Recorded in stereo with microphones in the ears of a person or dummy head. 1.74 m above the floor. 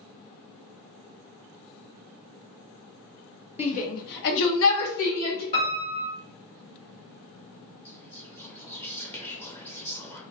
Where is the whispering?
15° left (ahead or behind), 1.1 m.